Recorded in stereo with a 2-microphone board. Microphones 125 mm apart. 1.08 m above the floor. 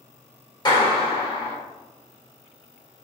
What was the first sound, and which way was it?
A clap, 35° left (ahead or behind).